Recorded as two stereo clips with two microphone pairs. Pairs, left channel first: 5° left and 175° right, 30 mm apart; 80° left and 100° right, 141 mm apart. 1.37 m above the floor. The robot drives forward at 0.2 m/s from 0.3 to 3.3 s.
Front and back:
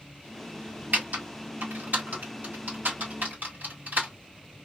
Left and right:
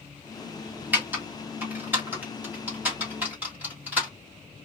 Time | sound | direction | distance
0.9 | typing on a keyboard | straight behind | 1.2 m